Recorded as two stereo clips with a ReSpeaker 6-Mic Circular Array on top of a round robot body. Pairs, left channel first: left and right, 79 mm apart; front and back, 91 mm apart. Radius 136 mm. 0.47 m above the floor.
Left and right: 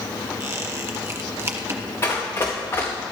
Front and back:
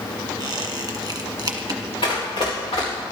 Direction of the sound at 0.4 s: 135° right.